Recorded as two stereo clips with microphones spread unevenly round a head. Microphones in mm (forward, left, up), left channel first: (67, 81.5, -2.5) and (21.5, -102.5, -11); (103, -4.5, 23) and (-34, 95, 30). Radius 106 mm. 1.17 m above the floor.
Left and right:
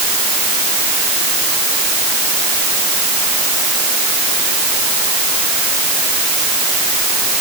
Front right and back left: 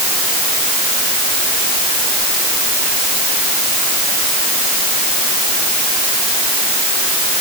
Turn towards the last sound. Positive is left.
No sound to turn to.